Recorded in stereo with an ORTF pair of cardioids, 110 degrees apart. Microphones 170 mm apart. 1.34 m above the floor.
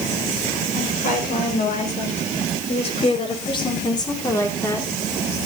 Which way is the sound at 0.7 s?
55° left.